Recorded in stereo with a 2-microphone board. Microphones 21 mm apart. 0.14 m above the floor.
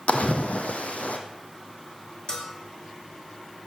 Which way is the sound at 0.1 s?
85° left.